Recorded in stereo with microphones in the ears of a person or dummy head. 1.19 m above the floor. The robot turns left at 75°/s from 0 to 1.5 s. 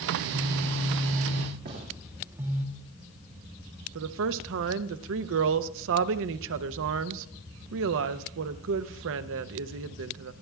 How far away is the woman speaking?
About 0.6 m.